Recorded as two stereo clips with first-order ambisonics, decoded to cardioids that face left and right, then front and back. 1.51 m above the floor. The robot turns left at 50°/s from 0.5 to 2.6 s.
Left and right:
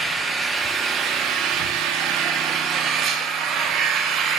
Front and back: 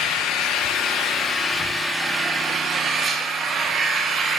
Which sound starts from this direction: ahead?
An engine running, at 0.0 s.